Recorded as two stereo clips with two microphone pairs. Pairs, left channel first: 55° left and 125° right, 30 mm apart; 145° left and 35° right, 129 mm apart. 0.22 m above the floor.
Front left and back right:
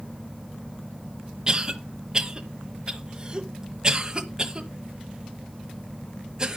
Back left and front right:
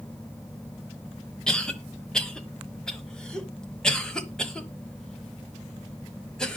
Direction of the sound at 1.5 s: 140° right.